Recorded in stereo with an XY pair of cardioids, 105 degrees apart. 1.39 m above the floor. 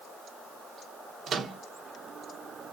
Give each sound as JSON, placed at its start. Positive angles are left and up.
{"t": 1.3, "sound": "a microwave", "azimuth_deg": -50, "distance_m": 0.9}